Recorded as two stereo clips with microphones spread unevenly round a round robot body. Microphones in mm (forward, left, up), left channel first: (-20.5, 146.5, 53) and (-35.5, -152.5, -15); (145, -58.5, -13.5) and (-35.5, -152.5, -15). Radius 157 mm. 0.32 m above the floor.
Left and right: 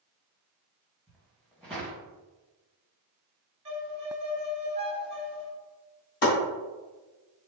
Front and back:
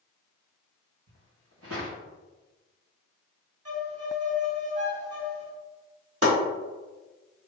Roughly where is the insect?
No insect in this recording.